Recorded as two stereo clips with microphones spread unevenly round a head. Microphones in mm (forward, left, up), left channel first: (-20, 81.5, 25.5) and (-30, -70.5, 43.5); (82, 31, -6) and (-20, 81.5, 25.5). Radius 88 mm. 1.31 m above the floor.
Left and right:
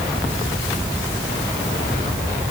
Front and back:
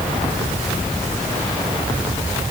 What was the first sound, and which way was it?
Only background noise.